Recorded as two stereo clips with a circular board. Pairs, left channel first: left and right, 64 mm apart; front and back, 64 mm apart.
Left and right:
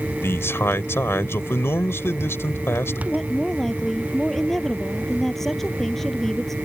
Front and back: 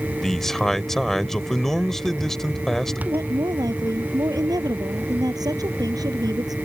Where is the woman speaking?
175° left.